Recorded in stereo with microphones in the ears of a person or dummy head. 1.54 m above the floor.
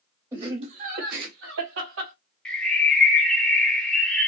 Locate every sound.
0.3 s laughter: 15° right (ahead or behind), 0.9 m; by 2.1 s 80° right, 1.5 m
2.5 s a bird: 5° left (ahead or behind), 0.6 m